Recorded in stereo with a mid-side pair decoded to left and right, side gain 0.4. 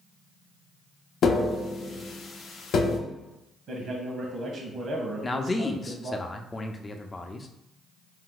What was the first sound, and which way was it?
Tapping, 65° left.